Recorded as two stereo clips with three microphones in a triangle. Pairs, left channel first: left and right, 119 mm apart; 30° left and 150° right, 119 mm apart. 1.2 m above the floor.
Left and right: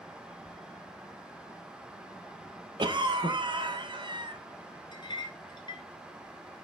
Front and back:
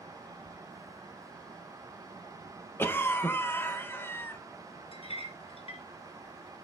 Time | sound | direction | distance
2.8 | a cough | 40° right | 0.8 m
4.9 | a clink | 50° left | 0.9 m